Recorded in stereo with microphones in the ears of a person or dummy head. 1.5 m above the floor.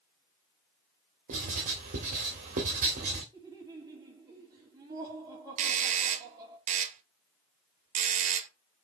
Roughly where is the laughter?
Right.